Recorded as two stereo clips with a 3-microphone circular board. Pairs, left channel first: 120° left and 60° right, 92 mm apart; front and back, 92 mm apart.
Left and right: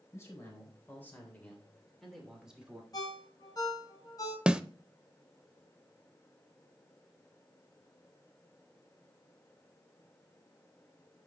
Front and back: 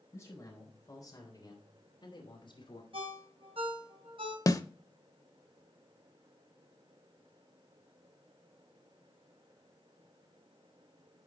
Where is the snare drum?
15° left, 0.5 m.